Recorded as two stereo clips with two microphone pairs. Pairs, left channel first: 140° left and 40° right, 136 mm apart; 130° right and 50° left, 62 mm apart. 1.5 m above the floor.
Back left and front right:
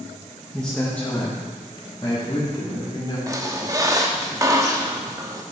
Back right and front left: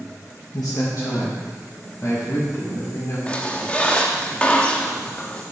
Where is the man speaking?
130° right, 1.5 m; by 3.2 s 160° right, 3.5 m.